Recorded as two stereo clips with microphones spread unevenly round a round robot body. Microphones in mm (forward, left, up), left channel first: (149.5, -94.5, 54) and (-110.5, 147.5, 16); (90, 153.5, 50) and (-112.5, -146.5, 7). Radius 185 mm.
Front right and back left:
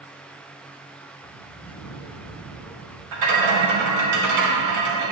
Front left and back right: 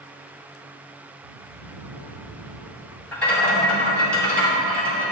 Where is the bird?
115° right, 2 m.